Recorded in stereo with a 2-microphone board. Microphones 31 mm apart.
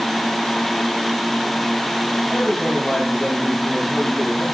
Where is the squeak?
No squeak in this recording.